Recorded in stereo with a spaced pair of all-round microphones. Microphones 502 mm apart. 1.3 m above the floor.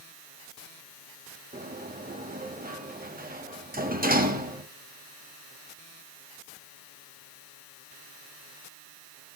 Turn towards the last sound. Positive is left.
turn(degrees=-15)  # may be behind; listen again after turning